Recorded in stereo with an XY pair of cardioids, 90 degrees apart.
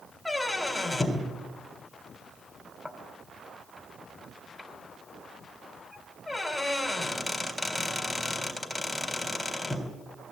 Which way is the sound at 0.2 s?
10° left.